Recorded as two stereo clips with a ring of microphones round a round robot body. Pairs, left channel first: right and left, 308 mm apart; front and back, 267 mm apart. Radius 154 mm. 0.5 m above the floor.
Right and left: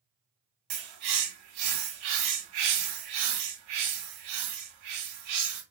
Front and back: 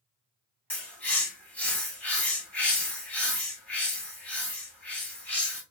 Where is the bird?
85° left, 3 m.